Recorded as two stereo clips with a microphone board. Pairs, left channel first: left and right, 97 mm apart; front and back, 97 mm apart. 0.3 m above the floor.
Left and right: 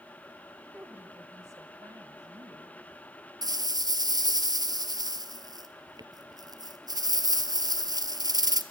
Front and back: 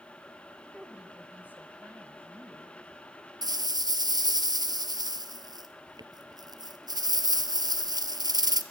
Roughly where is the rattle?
Behind right.